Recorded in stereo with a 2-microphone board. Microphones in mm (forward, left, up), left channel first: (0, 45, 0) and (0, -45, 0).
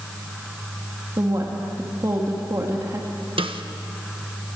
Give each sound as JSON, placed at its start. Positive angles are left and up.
{"t": 1.2, "sound": "a woman speaking", "side_deg": -40, "distance_m": 2.0}
{"t": 3.4, "sound": "a snare drum", "side_deg": -75, "distance_m": 1.3}